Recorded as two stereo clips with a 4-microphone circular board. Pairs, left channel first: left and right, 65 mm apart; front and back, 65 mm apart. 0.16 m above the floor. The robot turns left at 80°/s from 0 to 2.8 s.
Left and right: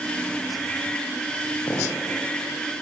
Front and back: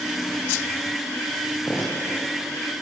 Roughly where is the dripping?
Ahead left.